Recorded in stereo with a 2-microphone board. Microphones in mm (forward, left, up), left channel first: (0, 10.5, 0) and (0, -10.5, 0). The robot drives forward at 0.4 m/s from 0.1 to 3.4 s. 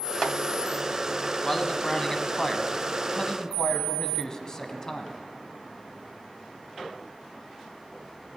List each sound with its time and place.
1.4 s a man speaking: 25° left (ahead or behind), 1.2 m; by 5.2 s 30° left (ahead or behind), 1.1 m